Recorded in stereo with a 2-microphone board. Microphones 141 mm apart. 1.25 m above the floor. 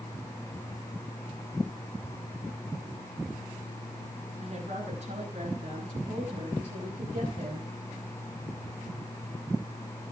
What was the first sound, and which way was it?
A woman speaking, 45° right (ahead or behind).